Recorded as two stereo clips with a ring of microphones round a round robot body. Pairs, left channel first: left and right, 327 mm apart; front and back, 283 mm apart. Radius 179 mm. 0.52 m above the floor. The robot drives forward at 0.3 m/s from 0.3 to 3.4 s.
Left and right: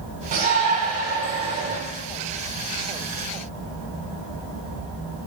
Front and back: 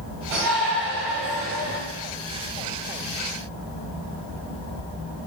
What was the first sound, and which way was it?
A shout, 155° right.